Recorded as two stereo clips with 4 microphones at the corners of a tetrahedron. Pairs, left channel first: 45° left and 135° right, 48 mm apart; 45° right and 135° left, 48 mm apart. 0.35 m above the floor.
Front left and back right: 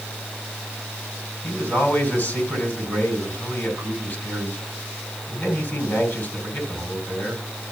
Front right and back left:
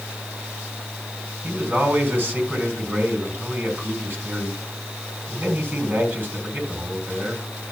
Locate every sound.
1.4 s a man speaking: 85° left, 3.5 m